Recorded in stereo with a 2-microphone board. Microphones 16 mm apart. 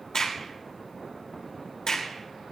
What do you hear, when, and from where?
0.1 s a crack: 55° left (ahead or behind), 3 m